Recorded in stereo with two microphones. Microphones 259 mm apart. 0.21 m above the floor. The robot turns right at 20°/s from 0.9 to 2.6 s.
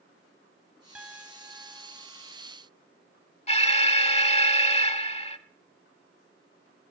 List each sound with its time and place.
0.9 s a piano: 5° right (ahead or behind), 1.5 m; by 2.0 s 15° right (ahead or behind), 1.5 m
3.5 s an alarm: 25° left (ahead or behind), 0.7 m